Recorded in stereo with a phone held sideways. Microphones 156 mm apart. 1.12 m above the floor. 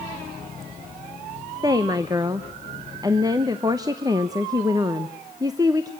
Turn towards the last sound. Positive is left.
turn(degrees=-20)  # may be behind; listen again after turning